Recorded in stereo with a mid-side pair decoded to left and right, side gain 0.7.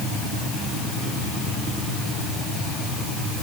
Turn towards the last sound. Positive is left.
No sound to turn to.